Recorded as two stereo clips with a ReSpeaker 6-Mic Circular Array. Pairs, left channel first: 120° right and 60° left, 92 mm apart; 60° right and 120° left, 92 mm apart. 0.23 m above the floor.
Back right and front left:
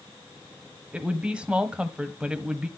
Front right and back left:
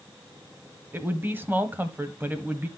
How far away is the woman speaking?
About 1.0 m.